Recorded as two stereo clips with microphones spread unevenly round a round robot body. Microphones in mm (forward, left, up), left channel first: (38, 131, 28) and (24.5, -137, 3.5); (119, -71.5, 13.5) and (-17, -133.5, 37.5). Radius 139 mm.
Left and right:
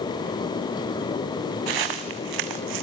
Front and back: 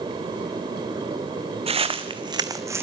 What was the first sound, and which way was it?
Footsteps, 110° right.